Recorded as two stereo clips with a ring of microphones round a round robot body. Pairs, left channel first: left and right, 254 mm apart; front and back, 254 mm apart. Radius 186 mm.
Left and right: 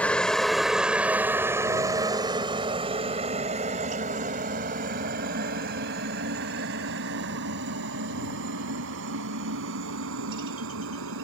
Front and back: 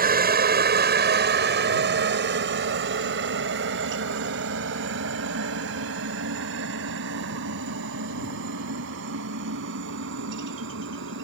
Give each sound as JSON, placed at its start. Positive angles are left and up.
{"t": 0.0, "sound": "a helicopter", "azimuth_deg": 175}